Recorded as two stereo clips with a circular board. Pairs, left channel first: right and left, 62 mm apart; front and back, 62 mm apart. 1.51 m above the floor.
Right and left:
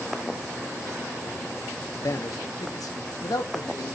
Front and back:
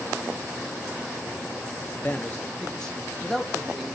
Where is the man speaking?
60° right, 1.0 m; by 4.0 s 90° right, 2 m.